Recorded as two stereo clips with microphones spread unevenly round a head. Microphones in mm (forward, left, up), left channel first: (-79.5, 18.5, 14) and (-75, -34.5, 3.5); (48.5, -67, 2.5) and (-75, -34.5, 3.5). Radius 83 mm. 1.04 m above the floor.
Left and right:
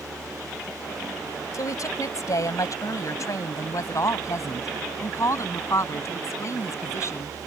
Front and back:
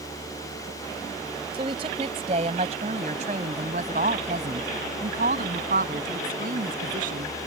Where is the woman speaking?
105° left; by 7.3 s 125° left.